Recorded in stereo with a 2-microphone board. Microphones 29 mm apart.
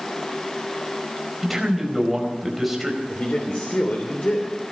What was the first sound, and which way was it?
A man speaking, 10° right (ahead or behind).